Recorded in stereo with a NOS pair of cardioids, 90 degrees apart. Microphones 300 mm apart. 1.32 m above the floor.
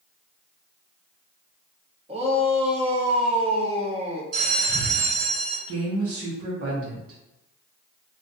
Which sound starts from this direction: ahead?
A shout, at 2.1 s.